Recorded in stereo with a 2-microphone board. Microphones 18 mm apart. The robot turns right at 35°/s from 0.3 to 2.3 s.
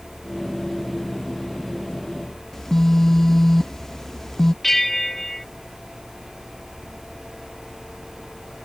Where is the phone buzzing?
25° left (ahead or behind).